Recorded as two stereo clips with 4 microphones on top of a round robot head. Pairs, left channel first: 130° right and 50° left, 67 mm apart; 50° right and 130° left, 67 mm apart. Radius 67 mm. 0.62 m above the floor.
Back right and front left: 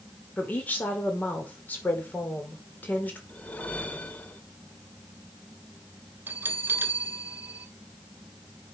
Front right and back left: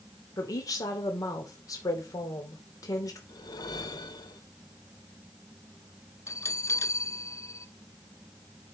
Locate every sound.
0.4 s a woman speaking: 70° right, 2.5 m
3.3 s a whoosh: 65° right, 1.6 m
6.3 s a bell: 5° right, 1.3 m